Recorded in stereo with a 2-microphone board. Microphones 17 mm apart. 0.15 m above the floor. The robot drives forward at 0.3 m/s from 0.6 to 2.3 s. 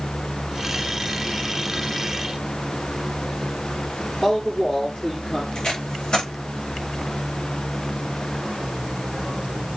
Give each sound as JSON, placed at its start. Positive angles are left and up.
{"t": 4.2, "sound": "a man speaking", "side_deg": 25, "distance_m": 3.0}
{"t": 5.5, "sound": "tape being pulled", "side_deg": 70, "distance_m": 7.0}